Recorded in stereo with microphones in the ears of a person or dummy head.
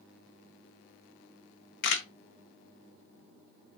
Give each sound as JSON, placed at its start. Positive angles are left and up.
{"t": 1.8, "sound": "a camera shutter", "side_deg": 55, "distance_m": 0.6}